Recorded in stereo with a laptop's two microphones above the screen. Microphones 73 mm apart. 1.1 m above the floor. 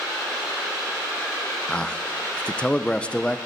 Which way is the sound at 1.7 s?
15° left (ahead or behind).